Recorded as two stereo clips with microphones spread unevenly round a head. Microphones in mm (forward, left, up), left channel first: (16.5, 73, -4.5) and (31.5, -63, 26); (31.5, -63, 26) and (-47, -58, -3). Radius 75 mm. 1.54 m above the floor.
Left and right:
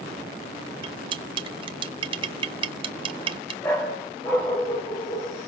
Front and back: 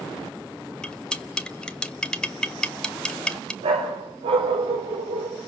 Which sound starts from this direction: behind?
A dog barking, at 3.6 s.